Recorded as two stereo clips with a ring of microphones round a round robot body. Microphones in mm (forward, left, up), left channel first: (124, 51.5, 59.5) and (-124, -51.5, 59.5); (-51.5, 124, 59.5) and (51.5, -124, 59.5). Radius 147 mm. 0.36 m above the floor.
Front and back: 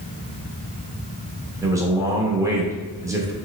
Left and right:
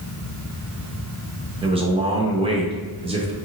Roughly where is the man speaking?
Right.